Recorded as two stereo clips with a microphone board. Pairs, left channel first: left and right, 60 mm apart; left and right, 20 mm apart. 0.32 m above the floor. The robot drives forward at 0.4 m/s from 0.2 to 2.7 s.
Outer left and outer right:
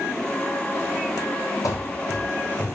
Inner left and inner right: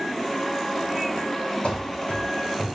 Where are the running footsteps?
70° left (ahead or behind), 0.8 m; by 2.8 s 10° left (ahead or behind), 1.2 m.